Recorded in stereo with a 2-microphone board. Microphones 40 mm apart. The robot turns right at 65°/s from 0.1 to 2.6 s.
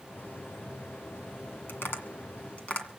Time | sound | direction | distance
1.7 | tapping | 70° left (ahead or behind) | 1.9 m